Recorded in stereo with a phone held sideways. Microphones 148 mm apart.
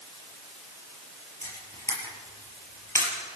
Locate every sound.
1.4 s a camera shutter: 20° left (ahead or behind), 5 m